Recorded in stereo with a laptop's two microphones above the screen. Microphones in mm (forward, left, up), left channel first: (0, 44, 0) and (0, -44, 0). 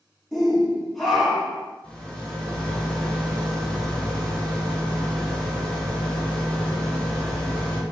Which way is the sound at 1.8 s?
15° left (ahead or behind).